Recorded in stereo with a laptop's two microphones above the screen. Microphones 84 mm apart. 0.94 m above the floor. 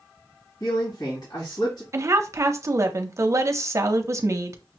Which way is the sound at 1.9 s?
35° right (ahead or behind).